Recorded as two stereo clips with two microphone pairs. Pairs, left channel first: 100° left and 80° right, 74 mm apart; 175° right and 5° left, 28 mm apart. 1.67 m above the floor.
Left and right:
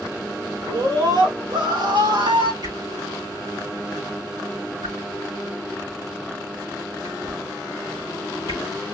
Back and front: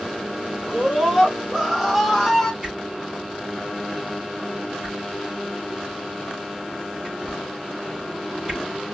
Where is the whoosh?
65° right, 4 m.